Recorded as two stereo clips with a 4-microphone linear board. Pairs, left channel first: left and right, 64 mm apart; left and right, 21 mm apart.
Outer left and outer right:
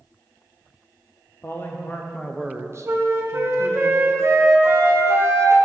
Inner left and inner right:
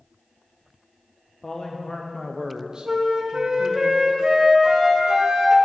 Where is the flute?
45° right (ahead or behind), 1.0 m.